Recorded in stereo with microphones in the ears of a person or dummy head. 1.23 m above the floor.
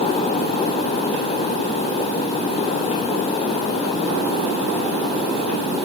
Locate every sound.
Only background noise.